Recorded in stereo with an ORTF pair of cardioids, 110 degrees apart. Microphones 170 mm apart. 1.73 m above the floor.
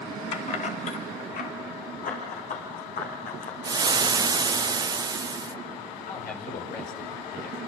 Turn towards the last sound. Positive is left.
turn(degrees=60)